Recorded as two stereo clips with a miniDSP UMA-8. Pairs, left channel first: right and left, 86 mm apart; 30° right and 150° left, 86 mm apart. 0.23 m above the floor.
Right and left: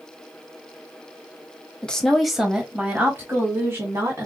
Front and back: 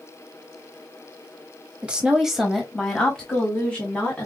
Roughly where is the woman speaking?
Behind right.